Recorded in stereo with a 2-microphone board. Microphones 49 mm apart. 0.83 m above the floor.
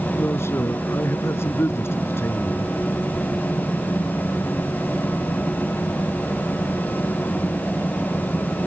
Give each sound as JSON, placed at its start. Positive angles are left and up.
{"t": 0.1, "sound": "a man speaking", "side_deg": 60}